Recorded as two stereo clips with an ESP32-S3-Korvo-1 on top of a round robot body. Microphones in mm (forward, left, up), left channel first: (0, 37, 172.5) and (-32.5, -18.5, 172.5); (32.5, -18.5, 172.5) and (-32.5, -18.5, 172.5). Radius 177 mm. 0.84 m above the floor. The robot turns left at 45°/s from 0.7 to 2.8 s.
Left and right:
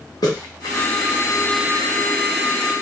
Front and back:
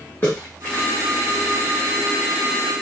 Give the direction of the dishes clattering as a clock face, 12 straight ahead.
No dishes clattering in this recording.